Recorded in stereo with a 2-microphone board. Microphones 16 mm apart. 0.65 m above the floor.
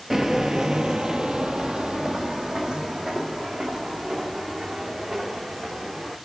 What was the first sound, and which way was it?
Footsteps, 30° right (ahead or behind).